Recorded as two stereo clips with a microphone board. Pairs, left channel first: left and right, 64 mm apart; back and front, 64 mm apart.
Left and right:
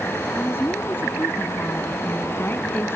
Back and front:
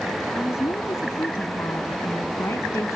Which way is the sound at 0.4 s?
140° left.